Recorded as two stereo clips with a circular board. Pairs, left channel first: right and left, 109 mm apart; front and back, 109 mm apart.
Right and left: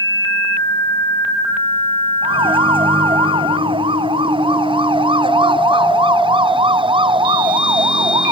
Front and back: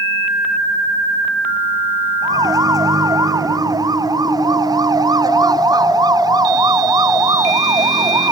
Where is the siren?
125° left; by 8.3 s 130° left.